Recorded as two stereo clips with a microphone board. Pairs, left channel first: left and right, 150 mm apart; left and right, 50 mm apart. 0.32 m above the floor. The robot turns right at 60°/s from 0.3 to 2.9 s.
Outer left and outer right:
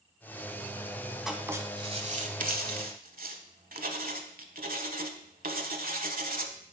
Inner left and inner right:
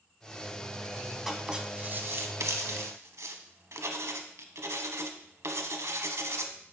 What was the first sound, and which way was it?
Writing, 175° right.